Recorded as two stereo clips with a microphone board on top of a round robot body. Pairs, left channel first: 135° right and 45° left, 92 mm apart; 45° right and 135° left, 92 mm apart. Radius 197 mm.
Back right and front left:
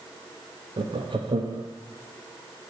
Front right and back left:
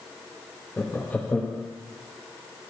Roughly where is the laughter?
Ahead left.